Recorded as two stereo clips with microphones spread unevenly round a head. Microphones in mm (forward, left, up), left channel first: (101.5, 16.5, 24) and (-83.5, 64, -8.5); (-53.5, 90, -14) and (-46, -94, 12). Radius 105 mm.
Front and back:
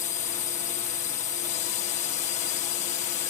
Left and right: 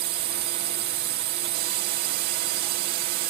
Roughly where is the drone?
Ahead right.